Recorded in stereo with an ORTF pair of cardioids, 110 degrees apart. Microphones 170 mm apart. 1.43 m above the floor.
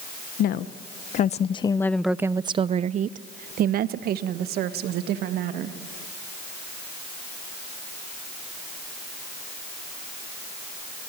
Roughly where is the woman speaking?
Ahead left.